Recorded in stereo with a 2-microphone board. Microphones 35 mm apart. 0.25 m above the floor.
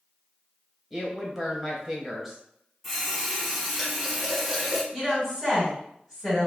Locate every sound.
0.9 s a woman speaking: 5° right (ahead or behind), 1.0 m
2.8 s a running tap: centre (ahead or behind), 1.3 m
4.9 s a woman speaking: 5° left (ahead or behind), 1.9 m